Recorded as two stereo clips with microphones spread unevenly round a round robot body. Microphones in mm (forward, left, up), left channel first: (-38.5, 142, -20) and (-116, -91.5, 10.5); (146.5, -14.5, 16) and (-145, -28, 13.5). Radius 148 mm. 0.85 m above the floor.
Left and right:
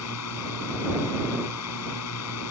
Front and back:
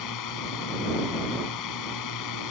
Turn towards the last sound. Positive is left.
turn(degrees=30)